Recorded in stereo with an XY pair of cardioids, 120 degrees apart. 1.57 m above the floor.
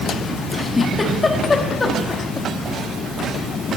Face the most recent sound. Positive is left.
turn(degrees=25)